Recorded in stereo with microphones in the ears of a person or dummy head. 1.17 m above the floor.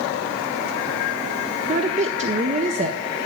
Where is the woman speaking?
35° right (ahead or behind), 0.7 m.